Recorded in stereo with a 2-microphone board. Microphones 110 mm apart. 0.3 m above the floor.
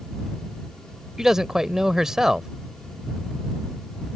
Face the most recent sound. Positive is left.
turn(degrees=-5)  # may be behind; listen again after turning